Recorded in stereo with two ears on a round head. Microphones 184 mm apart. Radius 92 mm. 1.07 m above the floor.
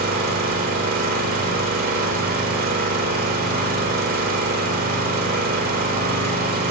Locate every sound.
0.0 s an engine running: 45° right (ahead or behind), 1.8 m